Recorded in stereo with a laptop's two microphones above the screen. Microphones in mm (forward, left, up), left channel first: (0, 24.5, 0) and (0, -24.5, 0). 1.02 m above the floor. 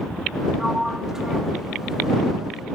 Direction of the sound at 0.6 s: 15° right (ahead or behind).